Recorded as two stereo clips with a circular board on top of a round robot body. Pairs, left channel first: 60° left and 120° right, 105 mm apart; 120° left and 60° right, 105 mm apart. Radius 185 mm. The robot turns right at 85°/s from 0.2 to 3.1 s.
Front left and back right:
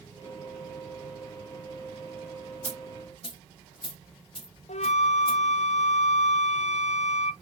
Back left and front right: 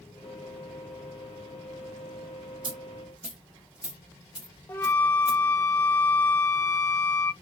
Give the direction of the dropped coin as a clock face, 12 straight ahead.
1 o'clock.